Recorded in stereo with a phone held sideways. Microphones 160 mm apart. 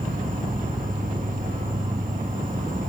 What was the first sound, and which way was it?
An insect, 55° right (ahead or behind).